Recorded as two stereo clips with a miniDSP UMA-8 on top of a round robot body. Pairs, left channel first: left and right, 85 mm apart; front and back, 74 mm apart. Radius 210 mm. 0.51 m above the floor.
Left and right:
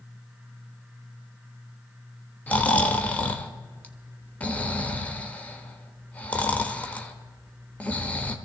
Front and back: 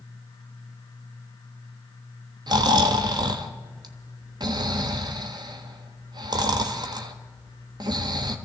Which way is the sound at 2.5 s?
165° left.